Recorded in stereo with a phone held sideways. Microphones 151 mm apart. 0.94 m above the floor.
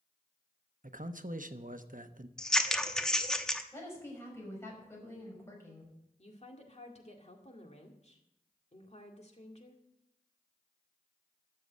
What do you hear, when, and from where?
0.8 s a man speaking: 60° right (ahead or behind), 0.9 m
2.4 s scissors: 5° left (ahead or behind), 0.9 m
3.7 s a woman speaking: 15° left (ahead or behind), 6 m
6.2 s a woman speaking: 45° left (ahead or behind), 2 m